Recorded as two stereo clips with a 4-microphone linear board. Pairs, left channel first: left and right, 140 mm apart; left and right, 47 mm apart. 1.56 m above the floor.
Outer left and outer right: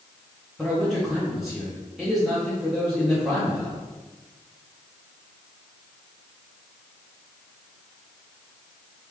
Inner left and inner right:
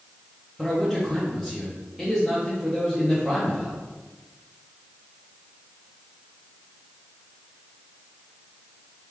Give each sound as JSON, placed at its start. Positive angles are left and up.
{"t": 0.6, "sound": "a man speaking", "side_deg": 0, "distance_m": 1.1}